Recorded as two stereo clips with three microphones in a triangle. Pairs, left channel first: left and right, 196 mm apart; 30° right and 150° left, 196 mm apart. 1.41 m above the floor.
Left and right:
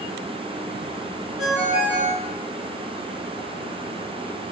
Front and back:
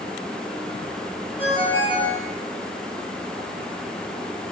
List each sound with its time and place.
1.4 s a ringtone: 95° right, 2.5 m